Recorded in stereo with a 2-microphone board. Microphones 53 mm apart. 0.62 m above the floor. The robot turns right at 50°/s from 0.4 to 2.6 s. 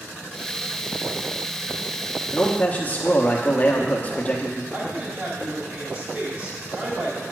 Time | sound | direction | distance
2.3 | a man speaking | 30° left (ahead or behind) | 1.0 m
4.7 | a woman speaking | 35° right (ahead or behind) | 3 m